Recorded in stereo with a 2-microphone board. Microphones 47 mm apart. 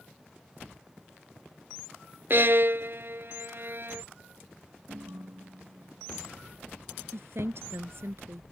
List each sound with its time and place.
2.3 s a violin: 55° right (ahead or behind)
4.9 s a ringtone: 70° right (ahead or behind)
7.1 s a woman speaking: 65° right (ahead or behind)